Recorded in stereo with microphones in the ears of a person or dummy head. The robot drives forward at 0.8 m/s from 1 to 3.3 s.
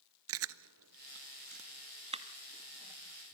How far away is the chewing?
About 0.5 m.